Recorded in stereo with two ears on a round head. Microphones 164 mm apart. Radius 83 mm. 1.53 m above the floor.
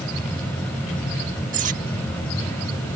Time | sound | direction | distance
1.5 | cutlery clinking | 45° right (ahead or behind) | ?